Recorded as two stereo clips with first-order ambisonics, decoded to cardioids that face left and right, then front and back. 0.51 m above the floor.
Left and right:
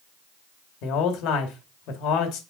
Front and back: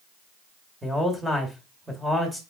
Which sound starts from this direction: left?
A man speaking, at 0.8 s.